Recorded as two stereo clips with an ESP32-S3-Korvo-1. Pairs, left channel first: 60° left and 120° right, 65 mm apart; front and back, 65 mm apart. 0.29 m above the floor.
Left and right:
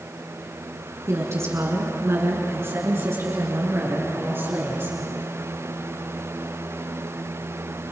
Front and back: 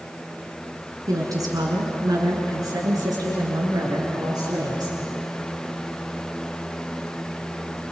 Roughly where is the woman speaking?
Behind.